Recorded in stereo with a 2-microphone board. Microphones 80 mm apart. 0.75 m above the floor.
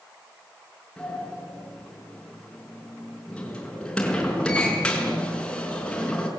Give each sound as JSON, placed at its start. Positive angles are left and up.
{"t": 1.0, "sound": "a sliding door", "side_deg": 10, "distance_m": 5.0}